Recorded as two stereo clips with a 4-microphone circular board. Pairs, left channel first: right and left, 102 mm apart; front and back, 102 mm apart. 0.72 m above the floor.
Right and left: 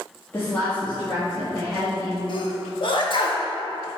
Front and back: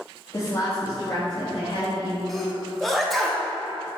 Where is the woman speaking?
35° right, 1.3 m; by 2.2 s 10° right, 4 m.